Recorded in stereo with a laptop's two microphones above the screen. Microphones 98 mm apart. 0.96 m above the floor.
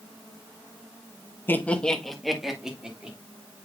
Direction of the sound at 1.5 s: 20° left (ahead or behind).